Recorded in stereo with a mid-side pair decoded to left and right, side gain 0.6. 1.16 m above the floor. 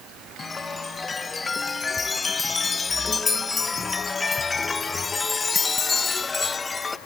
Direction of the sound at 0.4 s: 25° left.